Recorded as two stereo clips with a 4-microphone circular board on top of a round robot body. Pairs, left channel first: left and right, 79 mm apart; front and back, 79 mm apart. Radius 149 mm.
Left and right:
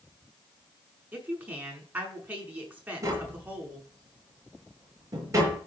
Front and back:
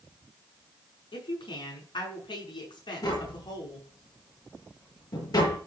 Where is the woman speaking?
20° right, 6 m.